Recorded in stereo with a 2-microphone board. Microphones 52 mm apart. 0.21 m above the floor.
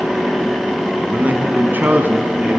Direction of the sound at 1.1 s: 35° right (ahead or behind).